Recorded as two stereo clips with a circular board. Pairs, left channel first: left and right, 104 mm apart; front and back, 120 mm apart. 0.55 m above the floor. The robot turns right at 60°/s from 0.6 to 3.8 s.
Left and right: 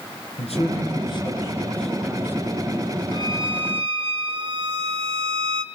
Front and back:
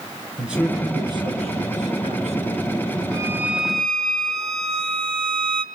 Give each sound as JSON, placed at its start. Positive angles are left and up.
{"t": 0.4, "sound": "a man speaking", "azimuth_deg": 95, "distance_m": 7.0}
{"t": 3.1, "sound": "a violin", "azimuth_deg": -125, "distance_m": 1.5}